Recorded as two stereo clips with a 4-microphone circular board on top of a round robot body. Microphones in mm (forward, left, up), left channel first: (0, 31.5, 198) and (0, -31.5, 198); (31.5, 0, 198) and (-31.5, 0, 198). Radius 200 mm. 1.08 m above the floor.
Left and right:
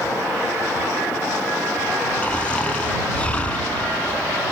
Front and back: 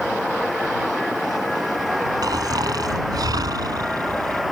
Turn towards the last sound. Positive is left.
turn(degrees=160)